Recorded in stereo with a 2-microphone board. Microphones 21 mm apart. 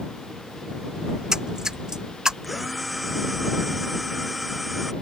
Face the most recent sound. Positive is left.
turn(degrees=-10)  # may be behind; listen again after turning